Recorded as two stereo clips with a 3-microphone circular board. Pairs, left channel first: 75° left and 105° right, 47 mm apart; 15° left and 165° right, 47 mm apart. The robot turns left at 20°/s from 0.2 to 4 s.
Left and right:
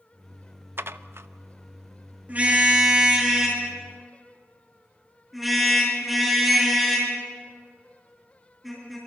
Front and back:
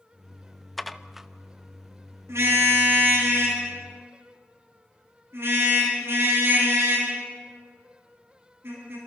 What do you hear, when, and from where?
0.8 s dishes clattering: 70° right, 0.5 m; by 1.3 s 80° right, 0.5 m
2.3 s a car horn: 155° right, 7 m; by 9.0 s 170° left, 7 m